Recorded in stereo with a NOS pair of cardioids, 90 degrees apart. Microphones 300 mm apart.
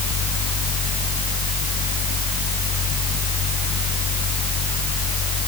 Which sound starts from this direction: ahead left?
A fan, at 0.0 s.